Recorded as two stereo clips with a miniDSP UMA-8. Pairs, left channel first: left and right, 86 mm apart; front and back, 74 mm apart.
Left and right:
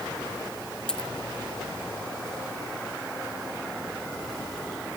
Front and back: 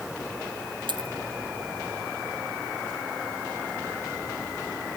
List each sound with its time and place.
0.9 s a dropped coin: 170° left